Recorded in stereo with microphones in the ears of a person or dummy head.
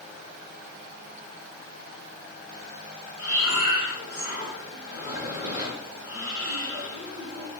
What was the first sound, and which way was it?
Breathing, 65° left (ahead or behind).